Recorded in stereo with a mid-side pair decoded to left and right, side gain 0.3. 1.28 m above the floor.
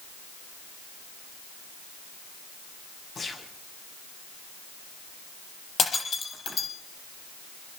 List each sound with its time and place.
3.1 s a gunshot: 55° left, 6 m
5.8 s breaking glass: 55° left, 7 m